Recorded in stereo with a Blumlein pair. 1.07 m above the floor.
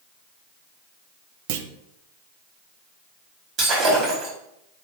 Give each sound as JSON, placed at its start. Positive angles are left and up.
{"t": 1.5, "sound": "a clunk", "azimuth_deg": -50, "distance_m": 0.7}
{"t": 3.6, "sound": "breaking glass", "azimuth_deg": -25, "distance_m": 4.5}